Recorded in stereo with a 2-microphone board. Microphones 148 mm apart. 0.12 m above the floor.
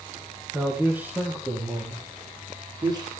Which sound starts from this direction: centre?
A man speaking, at 0.5 s.